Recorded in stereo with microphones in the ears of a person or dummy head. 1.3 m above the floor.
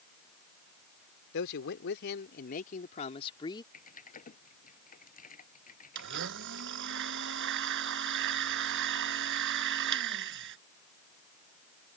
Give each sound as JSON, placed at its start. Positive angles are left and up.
{"t": 1.3, "sound": "a man speaking", "side_deg": 70}
{"t": 3.7, "sound": "typing on a keyboard", "side_deg": 45}
{"t": 6.0, "sound": "a blender", "side_deg": -65}